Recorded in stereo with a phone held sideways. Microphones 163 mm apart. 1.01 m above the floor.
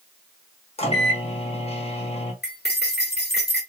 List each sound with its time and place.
0.8 s a microwave: 40° left (ahead or behind), 1.1 m
2.4 s cutlery clinking: 75° left (ahead or behind), 1.7 m